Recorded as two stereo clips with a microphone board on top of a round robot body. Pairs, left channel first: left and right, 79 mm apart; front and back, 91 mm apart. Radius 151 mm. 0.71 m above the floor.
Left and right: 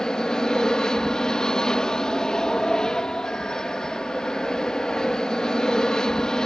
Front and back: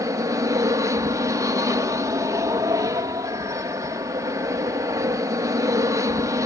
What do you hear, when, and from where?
0.0 s an aircraft: 165° left